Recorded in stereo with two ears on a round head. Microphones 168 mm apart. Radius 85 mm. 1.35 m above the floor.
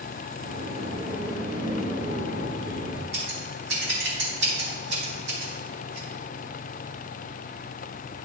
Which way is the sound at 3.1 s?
65° right (ahead or behind).